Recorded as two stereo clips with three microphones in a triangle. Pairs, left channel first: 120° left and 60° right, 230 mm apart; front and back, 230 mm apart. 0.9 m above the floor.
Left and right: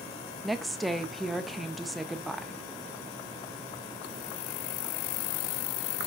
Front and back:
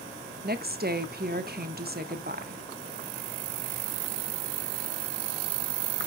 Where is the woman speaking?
150° right, 0.7 m.